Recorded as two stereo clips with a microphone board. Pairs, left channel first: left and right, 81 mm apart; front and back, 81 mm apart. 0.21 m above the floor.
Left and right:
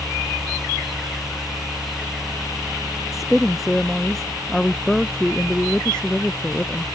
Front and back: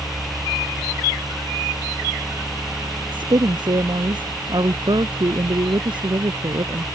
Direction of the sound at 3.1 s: Straight behind.